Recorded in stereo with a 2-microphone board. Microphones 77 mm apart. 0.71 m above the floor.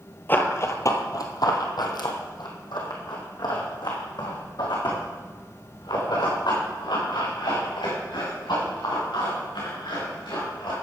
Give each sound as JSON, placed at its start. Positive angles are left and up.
{"t": 0.3, "sound": "running footsteps", "side_deg": 25, "distance_m": 1.0}